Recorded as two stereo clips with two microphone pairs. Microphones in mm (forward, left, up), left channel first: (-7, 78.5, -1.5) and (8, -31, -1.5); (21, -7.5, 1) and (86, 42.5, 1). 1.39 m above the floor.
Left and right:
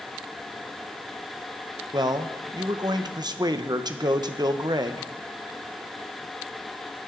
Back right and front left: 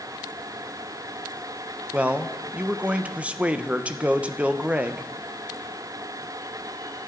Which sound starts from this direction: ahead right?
A man speaking, at 1.9 s.